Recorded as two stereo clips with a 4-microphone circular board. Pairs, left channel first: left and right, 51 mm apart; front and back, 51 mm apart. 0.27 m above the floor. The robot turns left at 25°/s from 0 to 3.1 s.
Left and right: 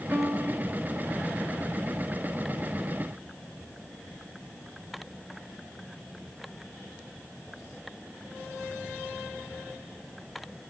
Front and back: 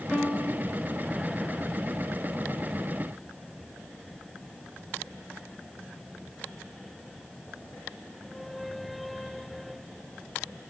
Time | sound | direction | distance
0.1 | a piano | 85° right | 3.5 m